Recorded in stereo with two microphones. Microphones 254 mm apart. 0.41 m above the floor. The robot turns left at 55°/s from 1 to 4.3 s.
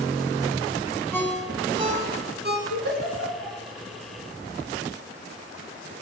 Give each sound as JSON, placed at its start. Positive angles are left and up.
{"t": 1.1, "sound": "a ringtone", "side_deg": 10, "distance_m": 1.0}
{"t": 2.7, "sound": "a giggle", "side_deg": 80, "distance_m": 3.5}